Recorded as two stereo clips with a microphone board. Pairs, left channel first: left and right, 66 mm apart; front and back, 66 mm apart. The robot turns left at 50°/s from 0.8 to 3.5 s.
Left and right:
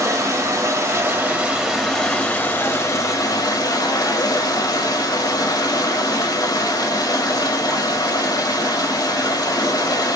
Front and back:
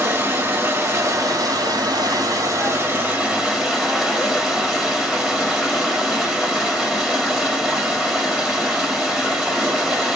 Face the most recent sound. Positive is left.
turn(degrees=100)